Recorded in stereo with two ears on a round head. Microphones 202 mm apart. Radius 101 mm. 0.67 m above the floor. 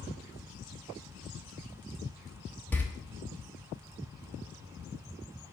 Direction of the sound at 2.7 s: 10° left (ahead or behind).